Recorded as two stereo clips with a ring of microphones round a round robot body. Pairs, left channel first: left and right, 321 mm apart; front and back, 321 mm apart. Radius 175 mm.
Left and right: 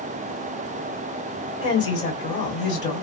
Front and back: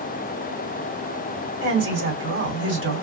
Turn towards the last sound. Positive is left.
turn(degrees=140)